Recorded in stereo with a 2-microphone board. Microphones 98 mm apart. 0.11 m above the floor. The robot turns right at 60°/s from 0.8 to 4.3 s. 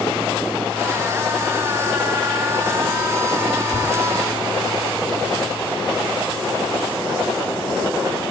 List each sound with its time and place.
3.7 s tapping: 35° left (ahead or behind), 4.5 m; by 3.9 s 25° left (ahead or behind), 4.5 m